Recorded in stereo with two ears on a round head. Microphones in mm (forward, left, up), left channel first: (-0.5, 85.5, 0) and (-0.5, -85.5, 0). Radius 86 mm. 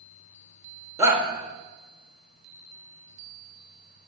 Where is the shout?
15° right (ahead or behind), 1.5 m.